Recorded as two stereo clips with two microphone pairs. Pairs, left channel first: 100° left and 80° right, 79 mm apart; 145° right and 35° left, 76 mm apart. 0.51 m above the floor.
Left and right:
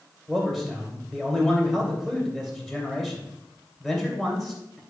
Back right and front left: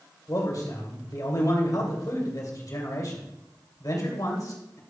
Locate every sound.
0.3 s a man speaking: 170° right, 2.5 m